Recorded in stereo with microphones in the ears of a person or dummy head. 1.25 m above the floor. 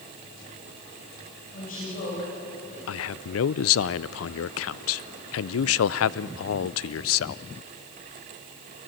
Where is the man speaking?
75° left (ahead or behind), 0.5 m.